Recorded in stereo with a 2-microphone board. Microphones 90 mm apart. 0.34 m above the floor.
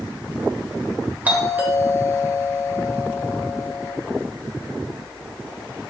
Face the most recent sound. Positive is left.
turn(degrees=-20)  # may be behind; listen again after turning